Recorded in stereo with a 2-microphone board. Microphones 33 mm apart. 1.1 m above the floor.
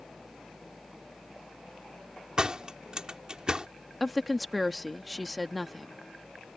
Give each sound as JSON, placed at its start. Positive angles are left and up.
{"t": 2.4, "sound": "a door slam", "side_deg": -25}
{"t": 4.0, "sound": "a woman speaking", "side_deg": 0}